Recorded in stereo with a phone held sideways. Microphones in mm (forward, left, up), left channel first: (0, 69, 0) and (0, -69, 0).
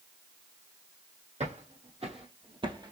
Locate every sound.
1.4 s footsteps: 55° right (ahead or behind), 1.7 m; by 2.9 s 30° right (ahead or behind), 1.1 m